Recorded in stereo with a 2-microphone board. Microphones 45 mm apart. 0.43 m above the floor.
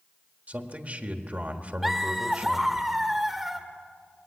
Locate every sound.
0.5 s a man speaking: 35° right (ahead or behind), 1.6 m
1.8 s laughter: 5° right (ahead or behind), 0.9 m